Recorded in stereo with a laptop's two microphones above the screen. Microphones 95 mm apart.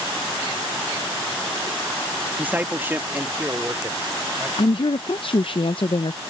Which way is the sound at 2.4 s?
15° right (ahead or behind).